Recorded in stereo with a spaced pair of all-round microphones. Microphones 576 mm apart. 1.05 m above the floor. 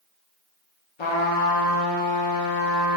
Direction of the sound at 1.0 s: 55° left (ahead or behind).